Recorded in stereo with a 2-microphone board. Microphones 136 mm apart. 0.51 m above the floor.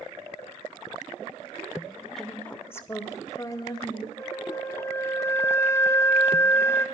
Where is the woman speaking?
5° left (ahead or behind), 1.0 m; by 4.1 s 30° left (ahead or behind), 3 m.